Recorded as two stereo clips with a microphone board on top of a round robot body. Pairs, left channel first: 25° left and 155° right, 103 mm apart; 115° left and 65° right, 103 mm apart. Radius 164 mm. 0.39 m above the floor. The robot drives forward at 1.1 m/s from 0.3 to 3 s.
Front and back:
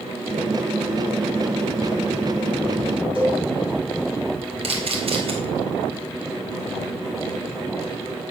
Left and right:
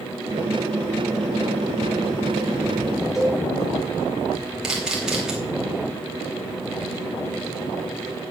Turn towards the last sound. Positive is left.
turn(degrees=-150)